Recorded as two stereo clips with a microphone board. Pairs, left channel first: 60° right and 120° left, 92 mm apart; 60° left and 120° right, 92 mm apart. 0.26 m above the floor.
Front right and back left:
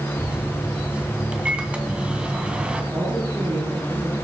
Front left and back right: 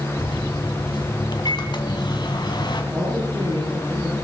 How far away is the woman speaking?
About 8.5 m.